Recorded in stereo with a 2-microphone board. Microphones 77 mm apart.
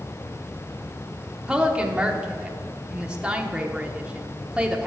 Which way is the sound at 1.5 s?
10° right (ahead or behind).